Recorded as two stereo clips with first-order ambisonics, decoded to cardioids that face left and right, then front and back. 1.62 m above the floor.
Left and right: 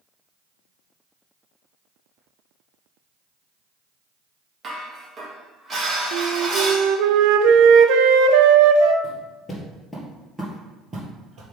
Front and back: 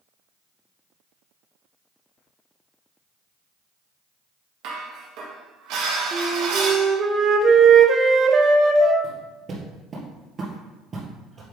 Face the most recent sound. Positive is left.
turn(degrees=-115)